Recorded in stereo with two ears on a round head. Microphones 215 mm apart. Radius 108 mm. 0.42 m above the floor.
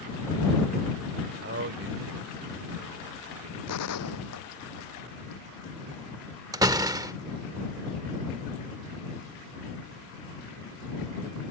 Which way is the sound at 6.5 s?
15° right (ahead or behind).